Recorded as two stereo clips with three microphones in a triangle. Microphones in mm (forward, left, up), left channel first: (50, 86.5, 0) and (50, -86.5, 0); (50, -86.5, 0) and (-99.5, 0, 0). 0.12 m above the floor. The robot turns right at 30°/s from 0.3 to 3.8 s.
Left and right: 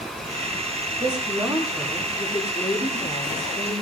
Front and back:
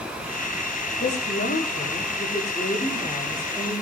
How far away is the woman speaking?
About 9.5 m.